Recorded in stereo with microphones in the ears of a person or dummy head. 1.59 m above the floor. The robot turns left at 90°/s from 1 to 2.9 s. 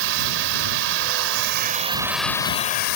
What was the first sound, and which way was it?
Running water, 70° right.